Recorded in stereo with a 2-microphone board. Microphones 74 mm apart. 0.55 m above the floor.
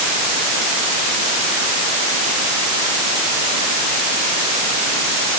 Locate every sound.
Only background noise.